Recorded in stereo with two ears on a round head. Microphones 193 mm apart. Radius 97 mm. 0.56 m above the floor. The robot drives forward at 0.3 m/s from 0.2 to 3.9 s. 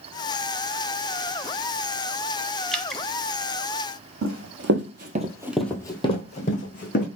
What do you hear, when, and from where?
2.7 s dripping: centre (ahead or behind), 0.6 m
4.2 s running footsteps: 70° right (ahead or behind), 1.5 m; by 7.1 s 45° left (ahead or behind), 2 m